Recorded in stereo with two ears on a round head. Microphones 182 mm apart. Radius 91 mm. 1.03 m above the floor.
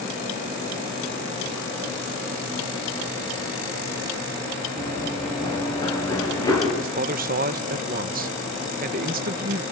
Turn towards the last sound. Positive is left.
turn(degrees=-45)  # may be behind; listen again after turning